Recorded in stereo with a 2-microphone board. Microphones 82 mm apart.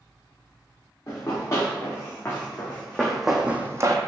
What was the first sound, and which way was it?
Running footsteps, 35° left (ahead or behind).